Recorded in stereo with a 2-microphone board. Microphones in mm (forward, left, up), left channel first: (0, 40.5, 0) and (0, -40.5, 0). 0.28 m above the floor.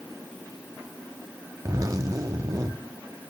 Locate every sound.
1.6 s a zipper: 40° right (ahead or behind), 1.1 m